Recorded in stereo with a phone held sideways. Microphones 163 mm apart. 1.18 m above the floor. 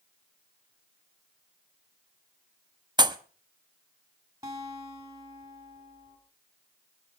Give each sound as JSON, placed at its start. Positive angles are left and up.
{"t": 3.0, "sound": "a pop", "side_deg": -25, "distance_m": 0.7}
{"t": 4.4, "sound": "a guitar", "side_deg": -20, "distance_m": 3.0}